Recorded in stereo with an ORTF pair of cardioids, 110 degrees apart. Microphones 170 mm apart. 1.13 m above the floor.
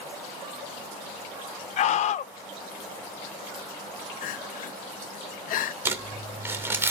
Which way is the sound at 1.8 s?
50° left.